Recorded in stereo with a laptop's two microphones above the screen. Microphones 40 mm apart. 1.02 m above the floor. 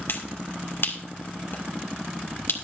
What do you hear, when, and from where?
0.1 s a finger snap: 65° left (ahead or behind), 2 m